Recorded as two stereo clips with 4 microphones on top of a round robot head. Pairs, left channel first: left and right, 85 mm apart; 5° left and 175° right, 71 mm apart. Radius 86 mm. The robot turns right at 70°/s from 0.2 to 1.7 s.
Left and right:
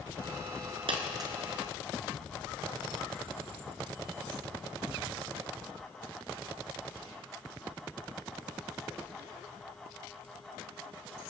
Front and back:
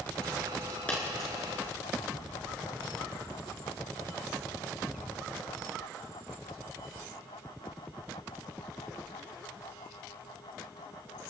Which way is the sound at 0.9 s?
70° right.